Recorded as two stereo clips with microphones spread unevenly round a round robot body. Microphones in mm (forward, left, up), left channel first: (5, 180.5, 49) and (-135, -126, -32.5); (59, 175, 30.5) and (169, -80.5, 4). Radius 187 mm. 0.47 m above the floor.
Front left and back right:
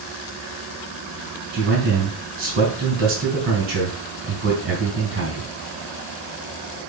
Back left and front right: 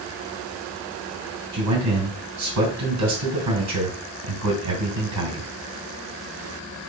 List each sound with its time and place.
1.5 s a man speaking: 55° right, 3 m